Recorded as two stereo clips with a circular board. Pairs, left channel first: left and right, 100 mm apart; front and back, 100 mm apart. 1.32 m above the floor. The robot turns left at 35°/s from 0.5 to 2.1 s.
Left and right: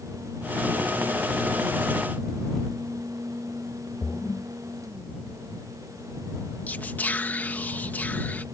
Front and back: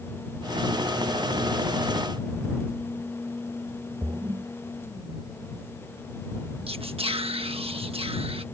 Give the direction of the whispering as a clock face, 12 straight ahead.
7 o'clock.